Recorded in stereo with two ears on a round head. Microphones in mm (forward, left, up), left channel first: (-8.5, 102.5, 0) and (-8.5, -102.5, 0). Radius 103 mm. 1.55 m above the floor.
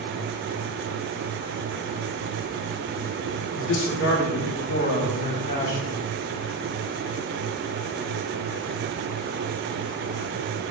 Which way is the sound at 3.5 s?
60° left (ahead or behind).